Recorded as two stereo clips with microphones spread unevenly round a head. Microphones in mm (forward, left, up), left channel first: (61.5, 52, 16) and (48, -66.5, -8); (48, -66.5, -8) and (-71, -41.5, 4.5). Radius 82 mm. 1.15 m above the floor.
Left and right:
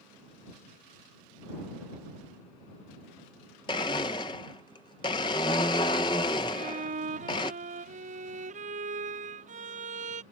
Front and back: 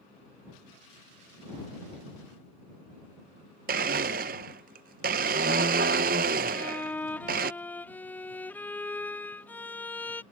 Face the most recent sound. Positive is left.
turn(degrees=-90)